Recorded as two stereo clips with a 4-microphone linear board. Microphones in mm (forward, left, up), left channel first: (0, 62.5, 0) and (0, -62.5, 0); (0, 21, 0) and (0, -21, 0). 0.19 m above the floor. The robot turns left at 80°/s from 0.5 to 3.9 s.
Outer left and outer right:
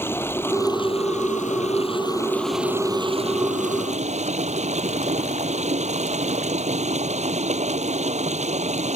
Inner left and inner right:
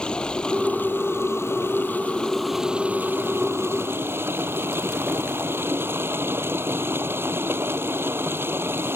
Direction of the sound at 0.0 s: 160° left.